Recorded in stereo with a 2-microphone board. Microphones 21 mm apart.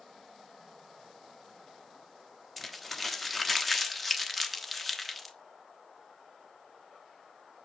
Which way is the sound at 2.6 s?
Centre (ahead or behind).